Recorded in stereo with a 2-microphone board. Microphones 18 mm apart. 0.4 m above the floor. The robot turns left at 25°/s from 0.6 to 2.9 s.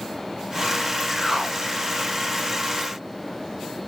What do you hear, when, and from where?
1.1 s a whoosh: centre (ahead or behind), 1.8 m; by 1.6 s 15° right (ahead or behind), 1.8 m